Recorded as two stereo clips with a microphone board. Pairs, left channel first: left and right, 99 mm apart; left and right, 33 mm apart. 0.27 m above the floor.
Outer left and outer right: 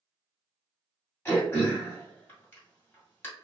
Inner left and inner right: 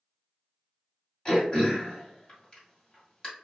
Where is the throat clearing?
20° left (ahead or behind), 1.8 m.